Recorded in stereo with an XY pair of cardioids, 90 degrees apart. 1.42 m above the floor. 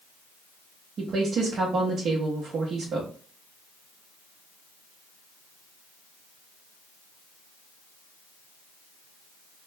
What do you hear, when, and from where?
1.0 s a woman speaking: 65° right, 1.1 m